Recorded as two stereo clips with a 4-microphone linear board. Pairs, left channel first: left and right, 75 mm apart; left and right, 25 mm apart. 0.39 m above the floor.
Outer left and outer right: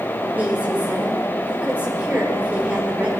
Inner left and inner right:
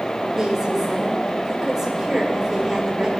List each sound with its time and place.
0.4 s a woman speaking: 20° right (ahead or behind), 1.2 m